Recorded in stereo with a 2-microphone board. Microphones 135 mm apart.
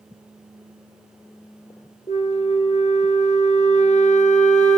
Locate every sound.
2.1 s a flute: 60° left (ahead or behind), 2 m